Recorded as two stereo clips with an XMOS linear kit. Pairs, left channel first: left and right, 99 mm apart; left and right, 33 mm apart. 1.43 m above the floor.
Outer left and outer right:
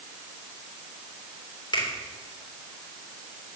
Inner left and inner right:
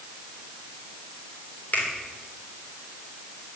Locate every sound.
1.7 s a finger snap: 60° left (ahead or behind), 3.5 m